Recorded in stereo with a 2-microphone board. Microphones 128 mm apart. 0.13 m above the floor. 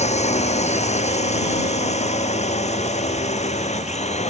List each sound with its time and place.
0.0 s a drone: 60° left (ahead or behind)